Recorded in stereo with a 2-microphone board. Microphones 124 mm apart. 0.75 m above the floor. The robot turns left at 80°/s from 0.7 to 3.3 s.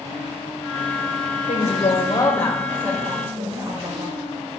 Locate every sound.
1.5 s a woman speaking: 90° left, 2.5 m; by 4.1 s 55° right, 2.5 m